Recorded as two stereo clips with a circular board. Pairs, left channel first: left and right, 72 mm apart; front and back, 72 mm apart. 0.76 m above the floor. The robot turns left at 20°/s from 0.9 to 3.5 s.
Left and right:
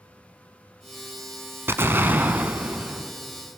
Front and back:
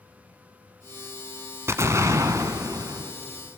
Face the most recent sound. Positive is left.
turn(degrees=-175)